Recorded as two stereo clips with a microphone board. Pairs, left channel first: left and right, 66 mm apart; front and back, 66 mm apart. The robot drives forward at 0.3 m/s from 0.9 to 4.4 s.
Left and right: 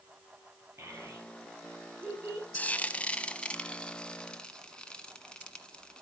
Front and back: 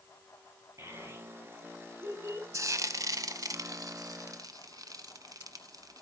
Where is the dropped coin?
I don't hear a dropped coin.